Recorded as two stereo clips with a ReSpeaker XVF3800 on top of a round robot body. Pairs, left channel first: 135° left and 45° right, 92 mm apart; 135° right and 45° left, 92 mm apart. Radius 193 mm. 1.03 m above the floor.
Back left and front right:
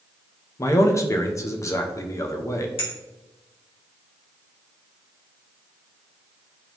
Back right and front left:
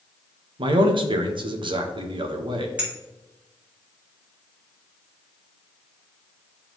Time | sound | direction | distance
0.6 | a man speaking | 75° left | 1.0 m
2.8 | a clink | 120° left | 2.5 m